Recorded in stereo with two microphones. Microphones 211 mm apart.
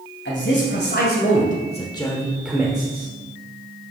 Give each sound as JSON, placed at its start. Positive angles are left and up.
{"t": 0.2, "sound": "a man speaking", "side_deg": 60, "distance_m": 2.5}